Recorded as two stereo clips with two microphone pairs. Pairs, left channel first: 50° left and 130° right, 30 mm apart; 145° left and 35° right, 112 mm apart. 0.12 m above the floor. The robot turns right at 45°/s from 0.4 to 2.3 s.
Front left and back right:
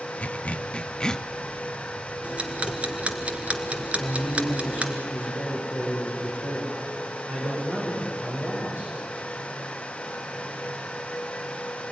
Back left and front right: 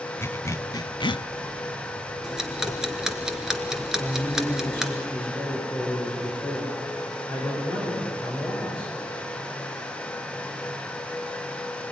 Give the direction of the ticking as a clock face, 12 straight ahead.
4 o'clock.